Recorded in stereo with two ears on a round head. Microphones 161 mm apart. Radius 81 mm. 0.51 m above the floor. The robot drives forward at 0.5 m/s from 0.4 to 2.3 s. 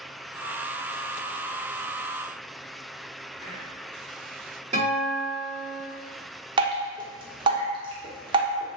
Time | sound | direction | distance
3.4 | whispering | 35° left (ahead or behind) | 1.6 m
4.7 | a guitar | 40° right (ahead or behind) | 1.7 m
6.6 | dripping | 25° right (ahead or behind) | 0.6 m